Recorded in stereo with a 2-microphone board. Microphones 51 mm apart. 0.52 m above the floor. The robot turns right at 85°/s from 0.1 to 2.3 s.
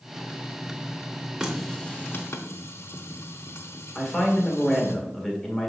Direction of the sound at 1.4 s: 15° right (ahead or behind).